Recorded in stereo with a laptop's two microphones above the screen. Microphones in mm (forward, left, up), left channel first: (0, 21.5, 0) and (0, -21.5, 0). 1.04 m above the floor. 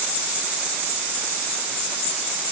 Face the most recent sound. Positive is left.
No sound to turn to.